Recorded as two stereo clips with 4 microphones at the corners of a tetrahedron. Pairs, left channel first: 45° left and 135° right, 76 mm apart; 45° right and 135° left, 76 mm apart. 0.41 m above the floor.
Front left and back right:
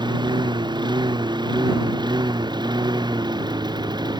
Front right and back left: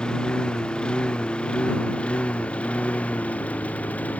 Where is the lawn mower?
125° right; by 4.2 s 115° right.